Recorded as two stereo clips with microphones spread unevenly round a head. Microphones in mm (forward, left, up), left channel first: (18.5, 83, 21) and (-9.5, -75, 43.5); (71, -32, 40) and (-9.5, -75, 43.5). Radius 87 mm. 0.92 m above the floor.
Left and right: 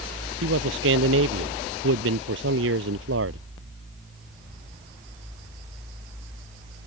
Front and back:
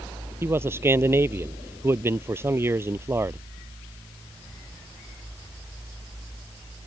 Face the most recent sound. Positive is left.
turn(degrees=-90)